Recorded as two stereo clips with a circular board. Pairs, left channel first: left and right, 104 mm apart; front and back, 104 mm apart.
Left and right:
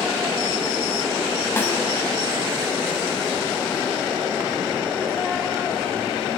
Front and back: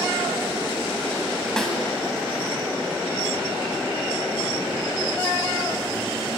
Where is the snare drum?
75° left, 1.2 m.